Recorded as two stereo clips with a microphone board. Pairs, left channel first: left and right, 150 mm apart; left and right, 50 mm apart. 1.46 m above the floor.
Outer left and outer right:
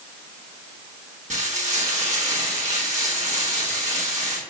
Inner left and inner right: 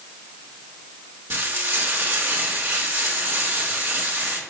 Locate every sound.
1.3 s frying: 55° right (ahead or behind), 1.3 m